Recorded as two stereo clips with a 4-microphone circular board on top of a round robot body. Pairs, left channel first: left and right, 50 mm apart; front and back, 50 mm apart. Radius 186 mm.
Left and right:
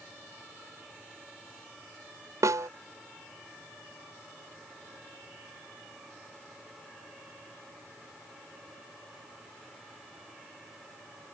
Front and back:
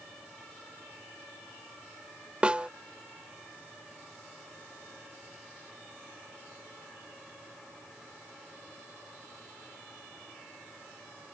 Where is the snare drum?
110° right.